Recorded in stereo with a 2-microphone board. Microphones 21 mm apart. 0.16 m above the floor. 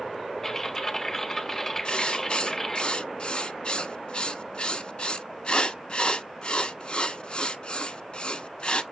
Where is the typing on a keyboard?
20° left (ahead or behind), 1.5 m.